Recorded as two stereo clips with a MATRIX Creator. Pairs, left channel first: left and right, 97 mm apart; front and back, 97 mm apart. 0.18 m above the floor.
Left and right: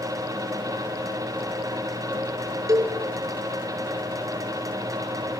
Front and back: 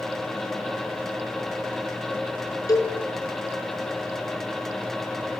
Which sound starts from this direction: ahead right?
A cowbell, at 2.7 s.